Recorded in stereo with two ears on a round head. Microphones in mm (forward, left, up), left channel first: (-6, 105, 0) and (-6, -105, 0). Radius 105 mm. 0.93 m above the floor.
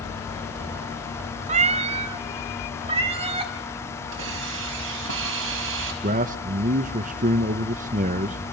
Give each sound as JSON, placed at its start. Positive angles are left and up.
{"t": 1.5, "sound": "a cat meowing", "side_deg": -30, "distance_m": 0.6}
{"t": 4.1, "sound": "a hiss", "side_deg": -60, "distance_m": 4.5}
{"t": 6.0, "sound": "a man speaking", "side_deg": -35, "distance_m": 0.8}